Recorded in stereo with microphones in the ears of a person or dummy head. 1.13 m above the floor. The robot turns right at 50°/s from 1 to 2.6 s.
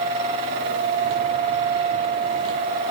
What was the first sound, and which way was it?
Only background noise.